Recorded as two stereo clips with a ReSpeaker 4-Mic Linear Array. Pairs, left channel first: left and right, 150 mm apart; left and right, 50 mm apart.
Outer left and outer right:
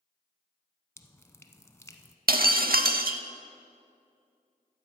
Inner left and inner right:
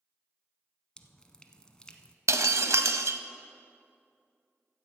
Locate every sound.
1.0 s dripping: 15° left (ahead or behind), 0.6 m
2.3 s breaking glass: 75° right (ahead or behind), 0.5 m